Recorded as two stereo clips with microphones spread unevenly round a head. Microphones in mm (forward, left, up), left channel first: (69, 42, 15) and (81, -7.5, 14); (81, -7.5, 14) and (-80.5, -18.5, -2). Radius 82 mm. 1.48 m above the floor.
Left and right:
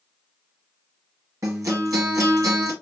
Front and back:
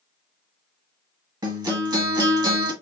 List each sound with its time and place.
1.4 s a guitar: 110° right, 1.6 m